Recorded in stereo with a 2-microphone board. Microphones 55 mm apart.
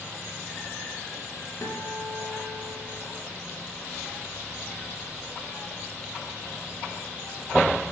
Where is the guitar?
70° left (ahead or behind), 7.5 m.